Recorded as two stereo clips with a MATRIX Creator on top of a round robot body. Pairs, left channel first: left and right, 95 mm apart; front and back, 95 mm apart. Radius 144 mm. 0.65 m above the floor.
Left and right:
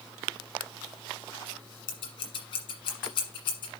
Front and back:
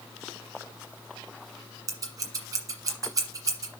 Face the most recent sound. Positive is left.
turn(degrees=130)